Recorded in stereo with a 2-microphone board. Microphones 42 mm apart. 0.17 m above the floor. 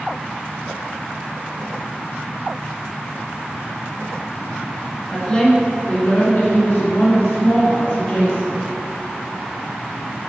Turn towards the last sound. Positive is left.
turn(degrees=65)  # may be behind; listen again after turning